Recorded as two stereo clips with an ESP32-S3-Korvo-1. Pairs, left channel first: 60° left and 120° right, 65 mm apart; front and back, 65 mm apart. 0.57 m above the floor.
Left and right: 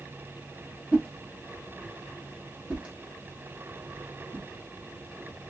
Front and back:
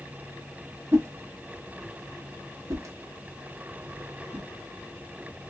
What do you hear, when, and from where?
0.9 s a whoosh: 175° left, 1.1 m